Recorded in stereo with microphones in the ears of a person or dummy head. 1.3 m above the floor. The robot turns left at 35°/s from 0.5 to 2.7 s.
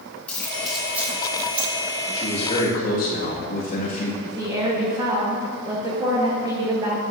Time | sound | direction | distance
0.3 | keys jangling | 5° left (ahead or behind) | 2.5 m
2.1 | a man speaking | 25° left (ahead or behind) | 2 m
4.2 | a woman speaking | 25° right (ahead or behind) | 1.3 m